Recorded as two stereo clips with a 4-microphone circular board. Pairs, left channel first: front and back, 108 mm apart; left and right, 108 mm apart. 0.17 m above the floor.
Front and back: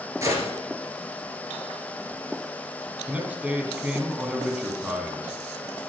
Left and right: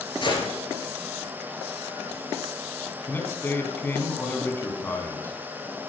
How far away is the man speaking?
About 1.4 m.